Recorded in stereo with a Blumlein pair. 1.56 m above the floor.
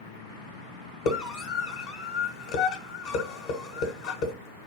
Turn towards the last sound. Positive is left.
turn(degrees=50)